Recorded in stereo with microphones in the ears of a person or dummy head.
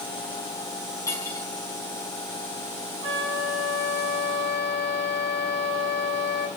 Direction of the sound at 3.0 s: 30° right (ahead or behind).